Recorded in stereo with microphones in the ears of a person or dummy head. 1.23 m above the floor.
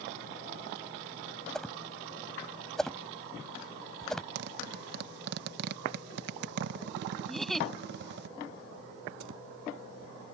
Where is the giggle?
5° left (ahead or behind).